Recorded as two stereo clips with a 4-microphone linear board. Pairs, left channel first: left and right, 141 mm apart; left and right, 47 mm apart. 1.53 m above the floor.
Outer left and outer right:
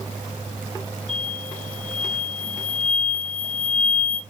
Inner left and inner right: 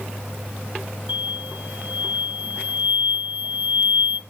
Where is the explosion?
45° right (ahead or behind), 1.2 m.